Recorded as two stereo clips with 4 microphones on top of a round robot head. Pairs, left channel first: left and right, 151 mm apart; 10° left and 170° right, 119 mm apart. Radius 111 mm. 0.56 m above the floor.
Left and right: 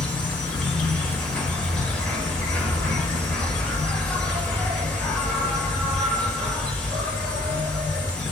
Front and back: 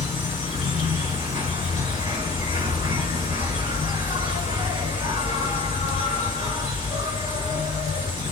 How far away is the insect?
About 2 m.